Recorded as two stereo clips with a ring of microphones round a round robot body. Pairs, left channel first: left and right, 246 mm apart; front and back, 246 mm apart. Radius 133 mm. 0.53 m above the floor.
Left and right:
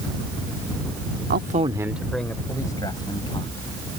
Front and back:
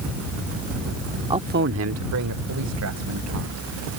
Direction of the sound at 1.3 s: 115° right.